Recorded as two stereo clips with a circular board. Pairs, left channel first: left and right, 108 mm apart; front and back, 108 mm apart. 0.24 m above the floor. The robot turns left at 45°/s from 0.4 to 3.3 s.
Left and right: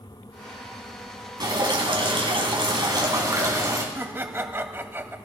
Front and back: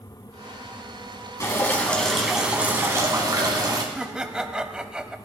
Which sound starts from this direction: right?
Laughter, at 4.0 s.